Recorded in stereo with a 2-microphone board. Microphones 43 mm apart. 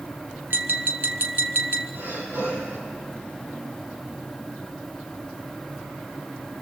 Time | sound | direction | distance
0.5 | tapping | 60° right (ahead or behind) | 1.5 m
1.9 | breathing | 75° right (ahead or behind) | 5 m